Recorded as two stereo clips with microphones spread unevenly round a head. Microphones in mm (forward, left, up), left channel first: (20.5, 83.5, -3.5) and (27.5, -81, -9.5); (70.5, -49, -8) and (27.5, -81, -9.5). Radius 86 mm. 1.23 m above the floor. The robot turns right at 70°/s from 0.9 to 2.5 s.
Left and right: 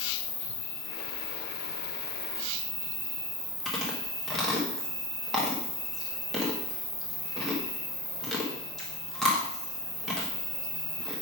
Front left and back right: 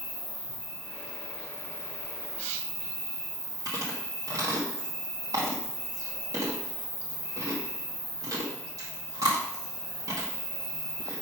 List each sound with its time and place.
0.0 s an insect: 80° left, 3.5 m; by 11.2 s 165° right, 3.5 m
3.6 s chewing: straight behind, 1.1 m